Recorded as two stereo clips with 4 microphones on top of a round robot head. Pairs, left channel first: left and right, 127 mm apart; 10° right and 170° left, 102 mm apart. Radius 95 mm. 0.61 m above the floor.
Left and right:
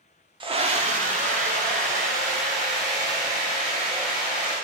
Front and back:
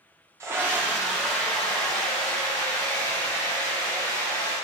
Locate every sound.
0.4 s a scream: 130° right, 1.0 m; by 4.5 s 85° right, 6 m